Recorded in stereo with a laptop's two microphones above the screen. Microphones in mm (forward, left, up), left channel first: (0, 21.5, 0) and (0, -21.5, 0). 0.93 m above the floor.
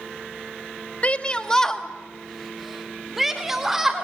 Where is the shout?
30° left (ahead or behind), 1.0 m; by 4.0 s 10° right (ahead or behind), 3.5 m.